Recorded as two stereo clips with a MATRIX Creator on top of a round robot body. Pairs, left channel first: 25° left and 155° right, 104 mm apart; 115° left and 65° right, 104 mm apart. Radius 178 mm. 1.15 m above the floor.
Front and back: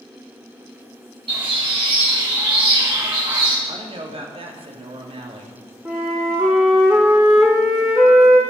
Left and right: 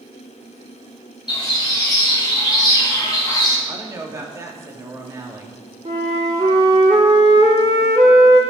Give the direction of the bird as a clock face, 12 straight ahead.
7 o'clock.